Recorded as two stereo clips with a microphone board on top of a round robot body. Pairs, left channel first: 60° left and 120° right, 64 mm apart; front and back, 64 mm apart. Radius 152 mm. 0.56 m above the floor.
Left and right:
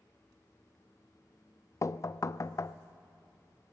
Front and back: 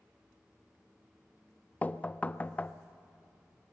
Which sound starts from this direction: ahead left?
Knocking, at 1.8 s.